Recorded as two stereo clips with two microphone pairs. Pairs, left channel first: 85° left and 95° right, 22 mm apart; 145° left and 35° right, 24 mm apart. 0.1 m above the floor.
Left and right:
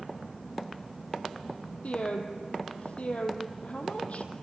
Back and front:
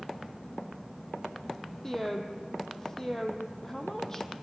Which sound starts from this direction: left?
A woman speaking, at 1.8 s.